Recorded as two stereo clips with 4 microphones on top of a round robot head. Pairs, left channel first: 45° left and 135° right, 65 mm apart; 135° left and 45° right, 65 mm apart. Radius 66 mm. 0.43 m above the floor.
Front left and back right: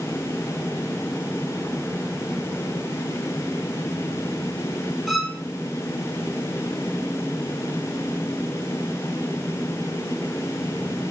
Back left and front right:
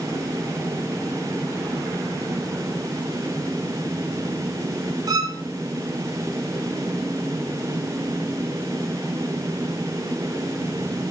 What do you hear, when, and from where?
5.1 s a violin: 45° right, 0.9 m